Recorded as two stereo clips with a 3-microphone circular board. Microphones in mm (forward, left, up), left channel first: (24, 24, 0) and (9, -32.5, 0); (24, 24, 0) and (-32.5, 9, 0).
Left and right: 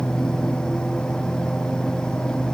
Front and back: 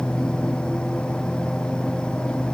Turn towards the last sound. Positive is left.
No sound to turn to.